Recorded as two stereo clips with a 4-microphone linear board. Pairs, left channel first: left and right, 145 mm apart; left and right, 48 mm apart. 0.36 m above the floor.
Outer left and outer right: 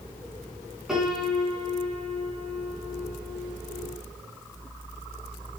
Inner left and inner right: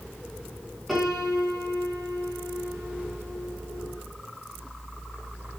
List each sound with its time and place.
0.9 s a piano: 5° right (ahead or behind), 4 m